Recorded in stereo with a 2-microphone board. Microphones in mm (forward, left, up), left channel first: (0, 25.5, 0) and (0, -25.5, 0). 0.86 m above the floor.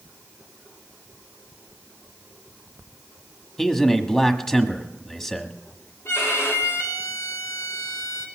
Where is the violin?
65° left (ahead or behind), 2.5 m.